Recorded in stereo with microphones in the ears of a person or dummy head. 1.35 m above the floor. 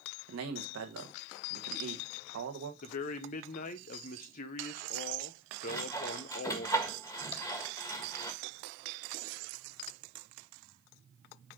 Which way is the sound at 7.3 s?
35° left (ahead or behind).